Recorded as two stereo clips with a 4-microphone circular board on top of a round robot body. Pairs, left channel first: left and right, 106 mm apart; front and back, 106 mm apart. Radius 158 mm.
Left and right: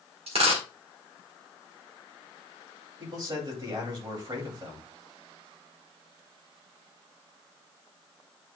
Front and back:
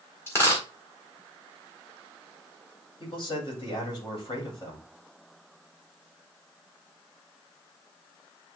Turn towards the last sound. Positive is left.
turn(degrees=-40)